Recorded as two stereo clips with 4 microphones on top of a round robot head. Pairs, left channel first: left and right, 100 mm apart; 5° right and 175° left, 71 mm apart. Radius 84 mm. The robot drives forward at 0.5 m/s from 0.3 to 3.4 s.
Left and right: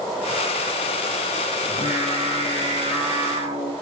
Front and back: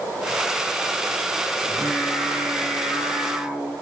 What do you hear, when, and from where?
1.6 s singing: 105° right, 4 m; by 3.7 s 115° right, 4.5 m